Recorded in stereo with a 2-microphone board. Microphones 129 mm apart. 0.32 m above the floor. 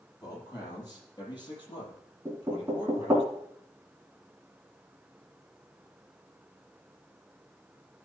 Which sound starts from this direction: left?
A man speaking, at 0.2 s.